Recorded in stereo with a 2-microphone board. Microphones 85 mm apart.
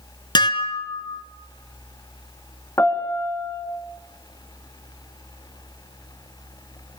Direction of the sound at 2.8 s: 35° left (ahead or behind).